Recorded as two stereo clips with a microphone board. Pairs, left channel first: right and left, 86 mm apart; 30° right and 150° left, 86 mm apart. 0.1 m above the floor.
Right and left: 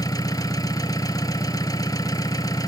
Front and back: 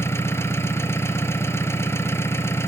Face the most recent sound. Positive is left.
turn(degrees=-75)